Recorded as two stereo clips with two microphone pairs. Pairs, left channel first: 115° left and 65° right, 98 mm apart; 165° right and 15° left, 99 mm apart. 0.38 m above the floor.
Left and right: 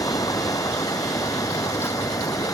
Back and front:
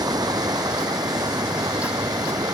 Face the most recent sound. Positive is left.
turn(degrees=65)